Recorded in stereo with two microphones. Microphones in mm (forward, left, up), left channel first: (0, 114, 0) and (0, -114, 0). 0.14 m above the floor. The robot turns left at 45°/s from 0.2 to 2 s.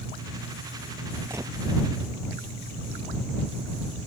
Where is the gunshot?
10° right (ahead or behind); by 1.5 s 20° right (ahead or behind).